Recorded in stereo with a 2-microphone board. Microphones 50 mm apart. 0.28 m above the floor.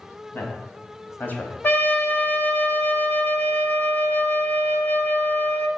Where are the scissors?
No scissors in this recording.